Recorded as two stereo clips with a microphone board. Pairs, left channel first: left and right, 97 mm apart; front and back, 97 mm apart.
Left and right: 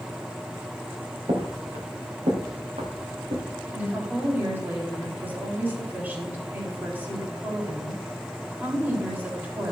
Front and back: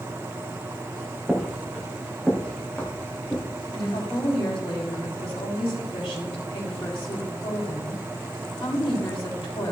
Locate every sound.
1.3 s footsteps: 90° right, 3 m; by 3.4 s 75° right, 3.5 m
3.7 s a woman speaking: 20° right, 4 m